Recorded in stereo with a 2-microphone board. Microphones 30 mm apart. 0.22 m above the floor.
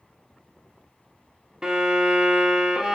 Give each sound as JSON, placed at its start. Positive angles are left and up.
{"t": 1.6, "sound": "a violin", "side_deg": -20, "distance_m": 0.6}